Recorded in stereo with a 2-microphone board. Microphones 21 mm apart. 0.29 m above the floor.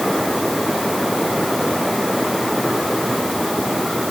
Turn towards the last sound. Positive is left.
No sound to turn to.